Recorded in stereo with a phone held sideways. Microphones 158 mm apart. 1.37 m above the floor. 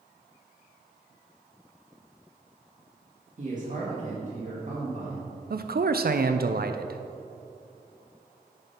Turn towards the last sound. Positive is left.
turn(degrees=-65)  # may be behind; listen again after turning